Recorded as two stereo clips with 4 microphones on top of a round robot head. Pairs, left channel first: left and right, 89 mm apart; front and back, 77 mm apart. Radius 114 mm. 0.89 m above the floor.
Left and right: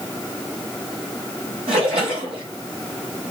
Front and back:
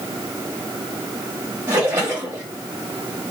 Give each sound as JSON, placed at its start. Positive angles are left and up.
{"t": 1.7, "sound": "a splash", "azimuth_deg": -115, "distance_m": 1.1}